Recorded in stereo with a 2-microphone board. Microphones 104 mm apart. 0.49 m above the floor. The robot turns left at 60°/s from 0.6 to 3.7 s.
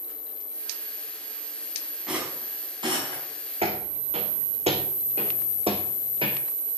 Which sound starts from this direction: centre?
A rattle, at 2.1 s.